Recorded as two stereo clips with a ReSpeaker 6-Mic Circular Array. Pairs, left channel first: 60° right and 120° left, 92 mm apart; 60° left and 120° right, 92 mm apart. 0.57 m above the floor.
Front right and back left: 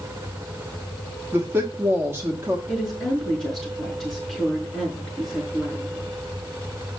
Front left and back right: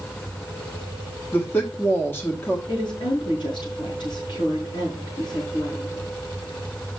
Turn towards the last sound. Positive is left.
turn(degrees=35)